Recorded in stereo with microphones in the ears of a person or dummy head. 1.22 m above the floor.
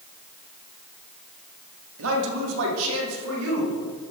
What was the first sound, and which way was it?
A man speaking, 75° right (ahead or behind).